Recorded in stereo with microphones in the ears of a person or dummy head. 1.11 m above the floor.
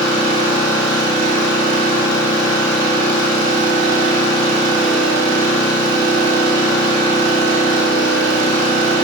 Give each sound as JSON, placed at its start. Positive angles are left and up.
{"t": 0.0, "sound": "an engine running", "side_deg": -75, "distance_m": 1.8}